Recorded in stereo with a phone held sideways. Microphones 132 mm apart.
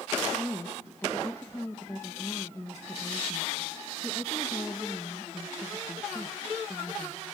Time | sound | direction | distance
0.3 | a woman speaking | 20° left (ahead or behind) | 1.4 m